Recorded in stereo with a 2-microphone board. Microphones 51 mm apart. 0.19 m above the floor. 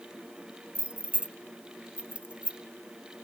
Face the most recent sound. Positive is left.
turn(degrees=-25)  # may be behind; listen again after turning